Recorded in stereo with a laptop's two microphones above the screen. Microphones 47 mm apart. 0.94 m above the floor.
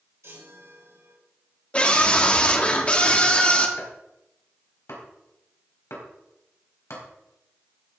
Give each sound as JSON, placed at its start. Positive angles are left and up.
{"t": 0.2, "sound": "a chime", "side_deg": -80, "distance_m": 4.0}
{"t": 1.7, "sound": "a scream", "side_deg": 25, "distance_m": 2.5}
{"t": 3.8, "sound": "chopping", "side_deg": 85, "distance_m": 4.0}